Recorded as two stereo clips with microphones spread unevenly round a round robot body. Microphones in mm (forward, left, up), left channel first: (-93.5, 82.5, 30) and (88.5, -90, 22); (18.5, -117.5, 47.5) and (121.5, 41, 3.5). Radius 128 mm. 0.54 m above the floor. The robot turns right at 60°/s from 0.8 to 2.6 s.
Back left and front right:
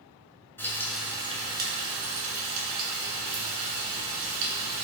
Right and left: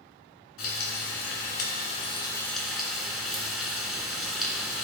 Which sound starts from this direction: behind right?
Frying, at 0.6 s.